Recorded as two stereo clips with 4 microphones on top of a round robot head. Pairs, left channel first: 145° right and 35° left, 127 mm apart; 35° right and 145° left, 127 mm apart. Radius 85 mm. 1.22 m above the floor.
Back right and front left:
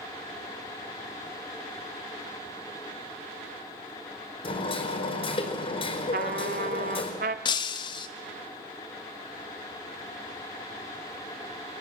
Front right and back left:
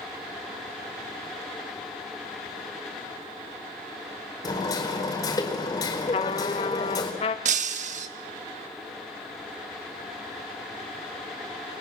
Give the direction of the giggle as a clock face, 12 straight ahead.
No giggle in this recording.